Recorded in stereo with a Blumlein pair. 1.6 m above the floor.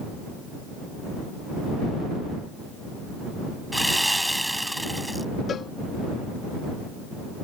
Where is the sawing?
Straight ahead.